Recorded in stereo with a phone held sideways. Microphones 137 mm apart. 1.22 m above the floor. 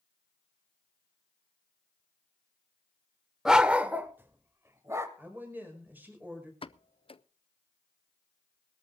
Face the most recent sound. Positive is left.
turn(degrees=40)  # may be behind; listen again after turning